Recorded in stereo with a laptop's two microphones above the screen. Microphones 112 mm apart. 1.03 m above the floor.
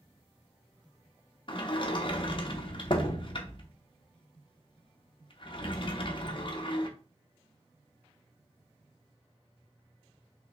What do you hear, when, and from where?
1.5 s a sliding door: 45° left (ahead or behind), 0.6 m